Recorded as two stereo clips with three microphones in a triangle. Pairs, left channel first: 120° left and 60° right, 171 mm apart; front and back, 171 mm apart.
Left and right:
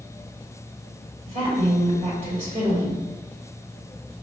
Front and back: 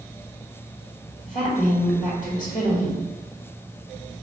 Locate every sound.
1.3 s a woman speaking: 25° right, 1.9 m